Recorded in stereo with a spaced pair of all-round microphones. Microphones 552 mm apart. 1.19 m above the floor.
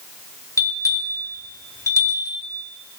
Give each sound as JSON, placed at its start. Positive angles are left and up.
{"t": 0.6, "sound": "a bell", "side_deg": 5, "distance_m": 1.2}